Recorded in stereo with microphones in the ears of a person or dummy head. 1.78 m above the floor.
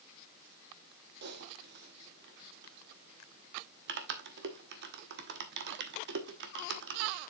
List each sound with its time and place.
1.2 s typing on a keyboard: 55° right (ahead or behind), 1.0 m